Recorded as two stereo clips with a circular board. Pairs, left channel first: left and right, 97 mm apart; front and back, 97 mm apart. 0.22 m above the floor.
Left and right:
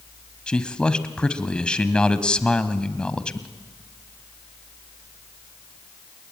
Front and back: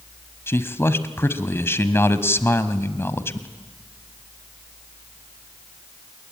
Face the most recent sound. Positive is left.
turn(degrees=20)